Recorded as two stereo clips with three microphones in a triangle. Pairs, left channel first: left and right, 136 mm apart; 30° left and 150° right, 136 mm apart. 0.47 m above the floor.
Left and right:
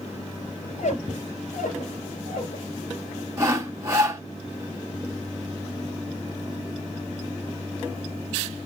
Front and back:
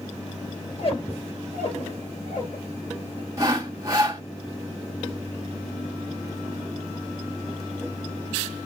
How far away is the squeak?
About 2.5 m.